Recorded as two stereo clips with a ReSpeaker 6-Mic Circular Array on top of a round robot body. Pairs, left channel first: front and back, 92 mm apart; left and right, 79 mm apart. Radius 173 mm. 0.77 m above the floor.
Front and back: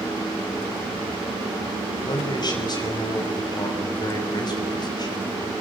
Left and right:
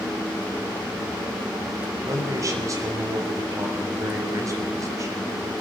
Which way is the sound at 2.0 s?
40° right.